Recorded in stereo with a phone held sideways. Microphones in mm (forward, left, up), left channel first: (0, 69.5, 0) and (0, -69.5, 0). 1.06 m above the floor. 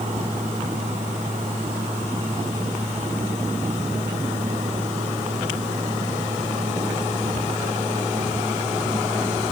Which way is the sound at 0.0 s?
55° right (ahead or behind).